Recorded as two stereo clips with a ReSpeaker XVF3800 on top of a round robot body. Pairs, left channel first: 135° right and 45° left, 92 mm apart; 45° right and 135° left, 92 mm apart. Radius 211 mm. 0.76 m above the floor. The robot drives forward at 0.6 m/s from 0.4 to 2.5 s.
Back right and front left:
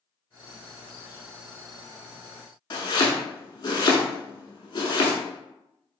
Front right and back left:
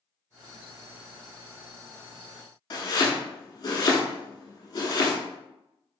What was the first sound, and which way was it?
Chopping, 95° right.